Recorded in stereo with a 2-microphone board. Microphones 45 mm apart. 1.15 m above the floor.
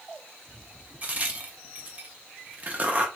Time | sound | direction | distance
1.0 | a crack | 35° right (ahead or behind) | 0.8 m